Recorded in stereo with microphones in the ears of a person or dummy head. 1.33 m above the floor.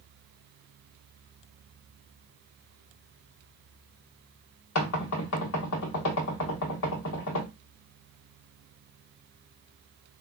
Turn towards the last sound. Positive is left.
turn(degrees=75)  # may be behind; listen again after turning